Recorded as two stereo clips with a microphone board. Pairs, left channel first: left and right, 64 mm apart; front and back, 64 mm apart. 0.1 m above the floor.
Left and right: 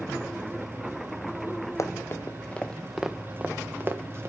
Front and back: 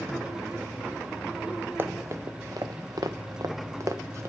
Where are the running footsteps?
130° left, 1.1 m; by 4.3 s 135° right, 1.6 m.